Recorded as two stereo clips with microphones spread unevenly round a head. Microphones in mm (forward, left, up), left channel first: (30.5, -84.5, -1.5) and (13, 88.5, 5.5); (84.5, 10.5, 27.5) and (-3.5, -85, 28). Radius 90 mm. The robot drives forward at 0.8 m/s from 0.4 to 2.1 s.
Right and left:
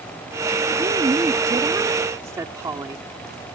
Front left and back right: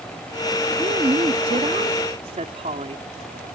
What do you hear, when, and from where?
0.8 s a woman speaking: 165° left; by 3.0 s 170° left